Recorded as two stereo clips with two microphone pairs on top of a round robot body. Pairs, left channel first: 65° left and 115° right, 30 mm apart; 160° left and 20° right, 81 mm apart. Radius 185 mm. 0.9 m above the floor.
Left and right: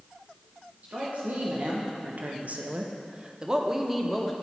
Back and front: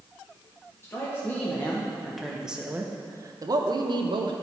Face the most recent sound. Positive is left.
turn(degrees=-30)